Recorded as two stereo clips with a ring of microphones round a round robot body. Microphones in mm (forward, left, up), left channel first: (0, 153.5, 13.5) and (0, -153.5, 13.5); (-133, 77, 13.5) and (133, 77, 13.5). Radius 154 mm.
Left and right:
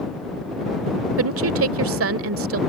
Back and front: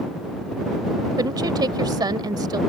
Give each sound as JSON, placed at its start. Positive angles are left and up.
{"t": 1.2, "sound": "a woman speaking", "azimuth_deg": -70}